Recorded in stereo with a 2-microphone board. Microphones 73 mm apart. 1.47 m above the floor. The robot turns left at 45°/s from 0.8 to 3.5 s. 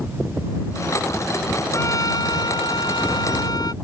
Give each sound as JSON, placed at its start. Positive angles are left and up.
{"t": 1.7, "sound": "a trumpet", "azimuth_deg": 140}